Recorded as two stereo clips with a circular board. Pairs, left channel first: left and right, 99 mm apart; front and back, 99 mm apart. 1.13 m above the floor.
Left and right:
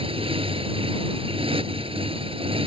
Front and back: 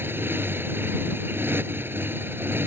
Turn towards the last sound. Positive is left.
turn(degrees=-110)